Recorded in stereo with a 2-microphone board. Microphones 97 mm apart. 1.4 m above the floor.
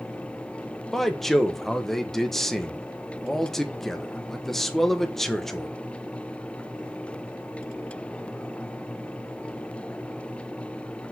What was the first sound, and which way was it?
A man speaking, centre (ahead or behind).